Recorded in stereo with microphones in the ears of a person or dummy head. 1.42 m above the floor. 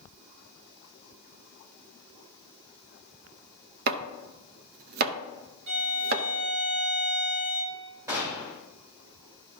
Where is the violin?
55° right (ahead or behind), 1.6 m.